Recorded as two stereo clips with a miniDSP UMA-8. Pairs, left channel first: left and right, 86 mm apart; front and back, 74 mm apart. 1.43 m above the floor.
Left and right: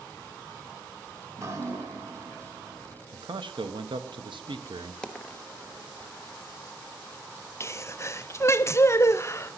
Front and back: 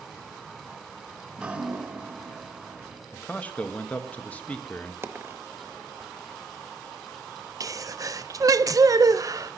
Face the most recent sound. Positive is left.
turn(degrees=145)